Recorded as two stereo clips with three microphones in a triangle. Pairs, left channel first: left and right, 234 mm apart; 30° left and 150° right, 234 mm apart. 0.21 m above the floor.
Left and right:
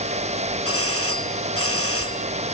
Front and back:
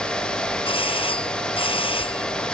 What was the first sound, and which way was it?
A doorbell, 95° left.